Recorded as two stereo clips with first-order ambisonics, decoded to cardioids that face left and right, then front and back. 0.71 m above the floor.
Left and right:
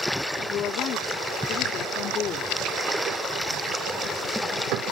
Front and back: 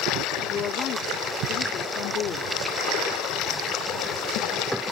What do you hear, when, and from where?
0.5 s a woman speaking: 40° left